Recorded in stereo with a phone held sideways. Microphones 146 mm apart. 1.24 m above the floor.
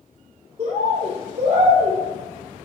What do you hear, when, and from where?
0.6 s a bird: 45° right (ahead or behind), 1.0 m